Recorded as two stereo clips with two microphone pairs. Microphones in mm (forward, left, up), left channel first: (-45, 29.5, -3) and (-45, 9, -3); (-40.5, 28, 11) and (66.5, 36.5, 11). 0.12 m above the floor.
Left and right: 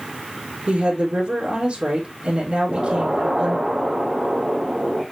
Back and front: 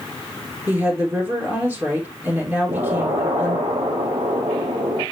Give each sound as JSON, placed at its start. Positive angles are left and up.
{"t": 0.7, "sound": "a woman speaking", "azimuth_deg": -65, "distance_m": 3.0}
{"t": 2.7, "sound": "an explosion", "azimuth_deg": -20, "distance_m": 2.5}